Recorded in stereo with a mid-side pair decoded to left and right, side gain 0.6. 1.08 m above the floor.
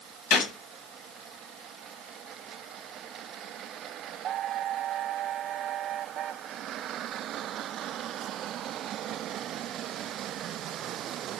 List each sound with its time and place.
0.3 s a gunshot: 65° left, 1.6 m